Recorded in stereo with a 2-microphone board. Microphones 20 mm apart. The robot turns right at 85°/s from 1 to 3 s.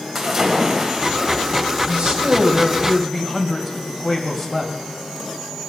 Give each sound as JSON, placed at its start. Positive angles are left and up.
{"t": 0.1, "sound": "a splash", "azimuth_deg": -175, "distance_m": 3.0}
{"t": 1.9, "sound": "a man speaking", "azimuth_deg": -100, "distance_m": 2.5}